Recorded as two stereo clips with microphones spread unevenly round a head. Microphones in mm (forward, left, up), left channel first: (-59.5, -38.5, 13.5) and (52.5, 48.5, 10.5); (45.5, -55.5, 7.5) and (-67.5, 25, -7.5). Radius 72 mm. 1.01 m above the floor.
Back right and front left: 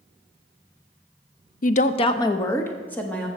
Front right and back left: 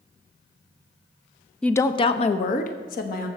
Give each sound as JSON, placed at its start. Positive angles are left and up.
{"t": 1.6, "sound": "a woman speaking", "azimuth_deg": -125, "distance_m": 0.5}